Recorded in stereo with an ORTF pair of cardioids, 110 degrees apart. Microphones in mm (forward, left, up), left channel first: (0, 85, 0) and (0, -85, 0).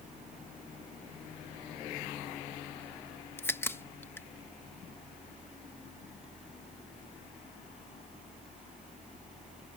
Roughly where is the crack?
Ahead.